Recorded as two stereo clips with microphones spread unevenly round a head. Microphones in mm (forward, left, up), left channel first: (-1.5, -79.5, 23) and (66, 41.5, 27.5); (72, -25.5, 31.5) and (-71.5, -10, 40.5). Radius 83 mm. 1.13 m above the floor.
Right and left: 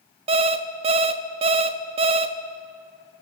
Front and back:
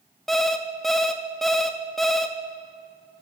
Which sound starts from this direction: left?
An alarm clock, at 0.3 s.